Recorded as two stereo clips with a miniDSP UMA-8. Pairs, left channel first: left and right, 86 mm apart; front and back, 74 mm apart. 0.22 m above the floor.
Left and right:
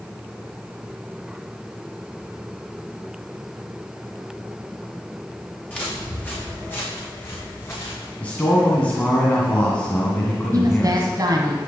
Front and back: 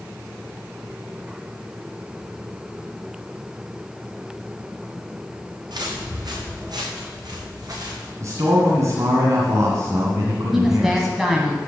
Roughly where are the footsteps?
Behind.